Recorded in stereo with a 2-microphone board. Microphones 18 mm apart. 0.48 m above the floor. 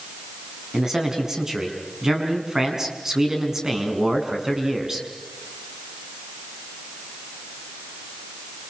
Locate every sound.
0.7 s a man speaking: 30° right (ahead or behind), 5.5 m